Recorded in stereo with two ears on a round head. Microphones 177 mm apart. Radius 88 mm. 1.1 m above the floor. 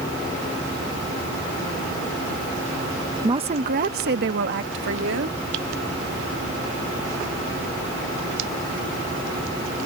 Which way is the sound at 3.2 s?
20° right (ahead or behind).